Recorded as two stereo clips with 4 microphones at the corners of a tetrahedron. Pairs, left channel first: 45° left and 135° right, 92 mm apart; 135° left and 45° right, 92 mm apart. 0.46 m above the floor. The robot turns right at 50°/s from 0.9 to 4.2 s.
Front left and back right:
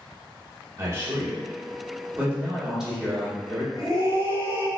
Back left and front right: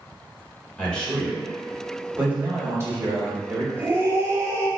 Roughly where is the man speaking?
Behind right.